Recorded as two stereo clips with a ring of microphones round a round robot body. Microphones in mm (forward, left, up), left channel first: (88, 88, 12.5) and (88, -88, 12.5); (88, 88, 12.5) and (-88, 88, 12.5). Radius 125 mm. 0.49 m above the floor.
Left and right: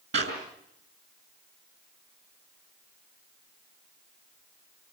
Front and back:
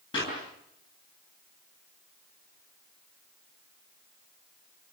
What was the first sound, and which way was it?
A clap, 70° right.